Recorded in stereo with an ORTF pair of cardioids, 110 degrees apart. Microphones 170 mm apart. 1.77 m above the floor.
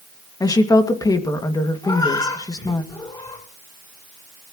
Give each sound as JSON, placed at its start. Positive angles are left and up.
{"t": 0.4, "sound": "a woman speaking", "azimuth_deg": 20, "distance_m": 2.5}
{"t": 1.8, "sound": "a cat meowing", "azimuth_deg": 25, "distance_m": 8.0}